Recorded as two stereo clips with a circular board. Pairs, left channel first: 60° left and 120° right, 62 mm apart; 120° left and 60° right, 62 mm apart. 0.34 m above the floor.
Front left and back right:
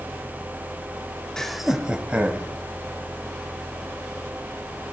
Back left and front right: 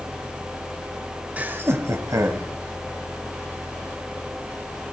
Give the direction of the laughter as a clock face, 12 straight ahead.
12 o'clock.